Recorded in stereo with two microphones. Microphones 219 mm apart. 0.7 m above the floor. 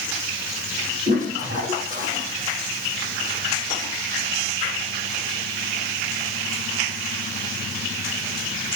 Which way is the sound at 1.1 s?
35° right (ahead or behind).